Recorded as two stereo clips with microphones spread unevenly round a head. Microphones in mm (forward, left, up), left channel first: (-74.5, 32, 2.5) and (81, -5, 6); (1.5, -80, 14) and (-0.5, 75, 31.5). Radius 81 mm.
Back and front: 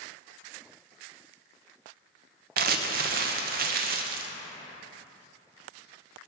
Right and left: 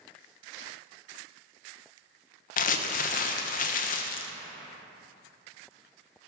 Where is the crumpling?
50° right, 0.7 m.